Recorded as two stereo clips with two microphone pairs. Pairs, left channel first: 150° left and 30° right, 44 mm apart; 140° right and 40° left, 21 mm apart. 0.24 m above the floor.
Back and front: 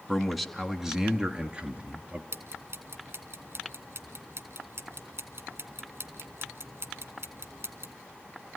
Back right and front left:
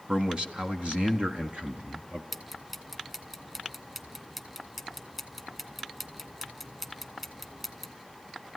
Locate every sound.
0.1 s a man speaking: 70° left, 2.5 m; by 2.2 s 25° left, 4 m
2.3 s ticking: 35° right, 3 m